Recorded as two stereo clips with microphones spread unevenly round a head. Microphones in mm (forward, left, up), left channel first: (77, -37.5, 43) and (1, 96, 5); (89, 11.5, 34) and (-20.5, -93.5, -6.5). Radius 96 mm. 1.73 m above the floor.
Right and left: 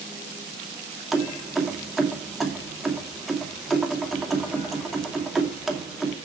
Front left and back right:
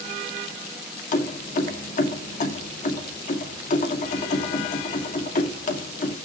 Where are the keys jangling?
25° left, 2.5 m.